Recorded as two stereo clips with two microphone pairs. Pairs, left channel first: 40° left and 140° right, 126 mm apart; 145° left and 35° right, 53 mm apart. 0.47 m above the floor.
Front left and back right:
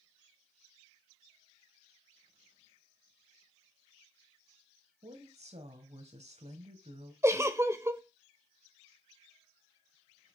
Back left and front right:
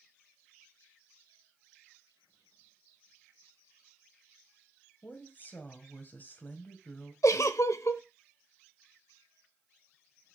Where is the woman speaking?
165° right, 2 m.